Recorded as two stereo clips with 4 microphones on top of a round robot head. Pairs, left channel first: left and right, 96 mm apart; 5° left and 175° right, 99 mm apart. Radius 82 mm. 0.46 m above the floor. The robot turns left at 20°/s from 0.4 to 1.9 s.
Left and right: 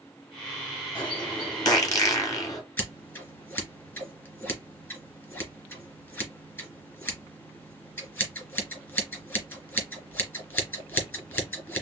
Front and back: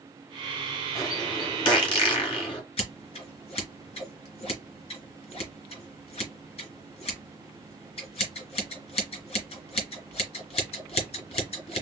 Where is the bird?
55° left, 2.5 m; by 2.6 s 35° left, 2.5 m.